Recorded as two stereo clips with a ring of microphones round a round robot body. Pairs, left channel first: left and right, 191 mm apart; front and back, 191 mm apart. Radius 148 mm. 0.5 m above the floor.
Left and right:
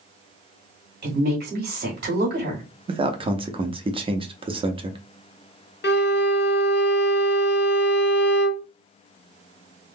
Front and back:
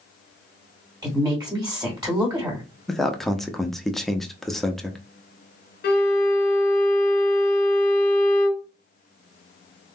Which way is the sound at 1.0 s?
110° right.